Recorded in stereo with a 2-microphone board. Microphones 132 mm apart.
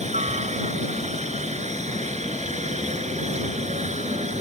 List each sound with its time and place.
0.0 s a helicopter: 60° right (ahead or behind)